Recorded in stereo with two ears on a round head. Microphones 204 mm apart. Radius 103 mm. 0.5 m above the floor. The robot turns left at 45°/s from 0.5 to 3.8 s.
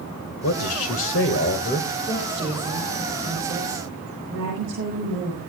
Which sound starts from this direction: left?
A man speaking, at 0.4 s.